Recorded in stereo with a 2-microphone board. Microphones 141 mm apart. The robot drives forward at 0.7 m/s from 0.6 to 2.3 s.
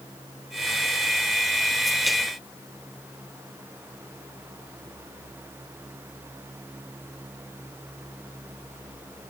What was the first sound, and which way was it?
Only background noise.